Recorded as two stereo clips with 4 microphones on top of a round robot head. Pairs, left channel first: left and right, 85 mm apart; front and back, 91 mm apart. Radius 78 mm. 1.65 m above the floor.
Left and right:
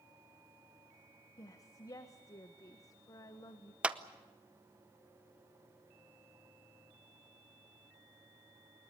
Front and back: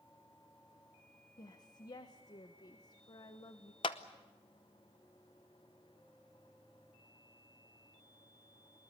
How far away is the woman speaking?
About 1.3 m.